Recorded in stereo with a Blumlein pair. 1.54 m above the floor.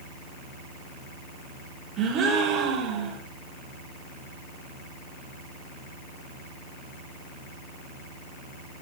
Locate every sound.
2.0 s a gasp: 35° right, 4 m